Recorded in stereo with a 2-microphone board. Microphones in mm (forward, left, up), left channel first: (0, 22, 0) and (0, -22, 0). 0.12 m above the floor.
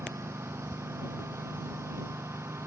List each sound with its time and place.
0.0 s a lawn mower: 85° right